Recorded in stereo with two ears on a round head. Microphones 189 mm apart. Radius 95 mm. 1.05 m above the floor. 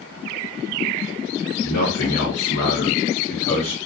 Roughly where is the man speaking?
Left.